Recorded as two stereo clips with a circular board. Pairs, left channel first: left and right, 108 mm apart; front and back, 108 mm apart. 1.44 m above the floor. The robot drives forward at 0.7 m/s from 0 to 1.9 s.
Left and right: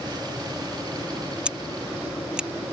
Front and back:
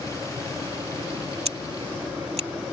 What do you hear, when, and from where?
1.4 s scissors: 170° right